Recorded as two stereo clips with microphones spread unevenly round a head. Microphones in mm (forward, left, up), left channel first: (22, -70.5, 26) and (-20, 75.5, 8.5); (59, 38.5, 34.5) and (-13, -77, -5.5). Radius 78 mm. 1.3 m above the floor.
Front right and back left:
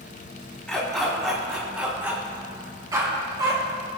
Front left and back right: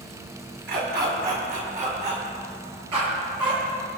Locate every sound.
0.7 s a dog barking: 160° right, 4.5 m; by 4.0 s 170° left, 6.5 m